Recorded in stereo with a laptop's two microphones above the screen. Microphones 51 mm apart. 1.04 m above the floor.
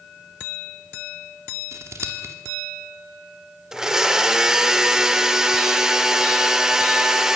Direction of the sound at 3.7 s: 10° right (ahead or behind).